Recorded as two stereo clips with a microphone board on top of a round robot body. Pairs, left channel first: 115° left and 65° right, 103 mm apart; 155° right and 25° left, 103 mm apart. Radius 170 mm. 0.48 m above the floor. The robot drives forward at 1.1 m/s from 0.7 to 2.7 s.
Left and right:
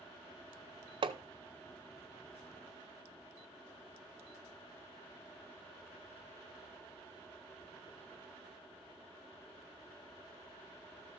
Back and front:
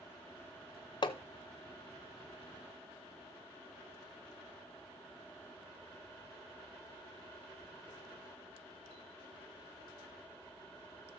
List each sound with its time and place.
1.0 s hammering: 110° right, 0.6 m; by 1.2 s 125° right, 0.7 m